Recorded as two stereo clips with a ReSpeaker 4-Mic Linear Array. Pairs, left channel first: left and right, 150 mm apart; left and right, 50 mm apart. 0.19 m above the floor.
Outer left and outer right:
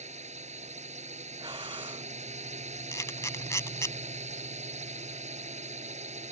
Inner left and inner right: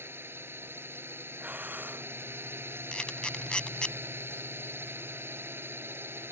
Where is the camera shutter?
20° left (ahead or behind).